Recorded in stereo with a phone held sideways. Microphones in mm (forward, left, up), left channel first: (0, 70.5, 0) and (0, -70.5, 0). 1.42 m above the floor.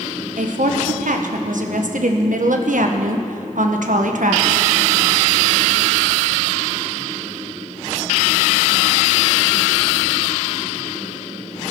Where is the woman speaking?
75° right (ahead or behind), 1.2 m.